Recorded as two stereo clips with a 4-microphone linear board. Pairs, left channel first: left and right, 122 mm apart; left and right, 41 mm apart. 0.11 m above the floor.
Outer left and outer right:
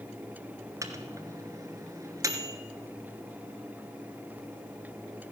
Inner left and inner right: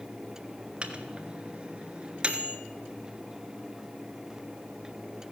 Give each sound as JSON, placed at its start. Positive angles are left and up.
{"t": 0.8, "sound": "a microwave", "side_deg": -25, "distance_m": 1.2}